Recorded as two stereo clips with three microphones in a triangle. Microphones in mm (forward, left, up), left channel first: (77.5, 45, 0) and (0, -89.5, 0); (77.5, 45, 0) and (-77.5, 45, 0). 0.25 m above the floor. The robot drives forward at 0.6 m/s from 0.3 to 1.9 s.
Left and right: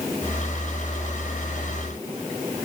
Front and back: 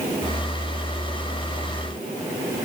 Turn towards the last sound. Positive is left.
No sound to turn to.